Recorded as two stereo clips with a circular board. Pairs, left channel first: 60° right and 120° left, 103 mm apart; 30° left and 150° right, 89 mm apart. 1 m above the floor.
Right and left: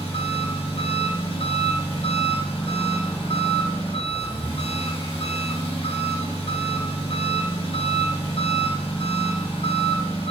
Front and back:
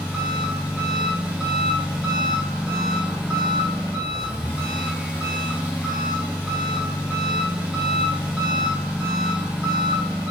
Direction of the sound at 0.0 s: 70° right.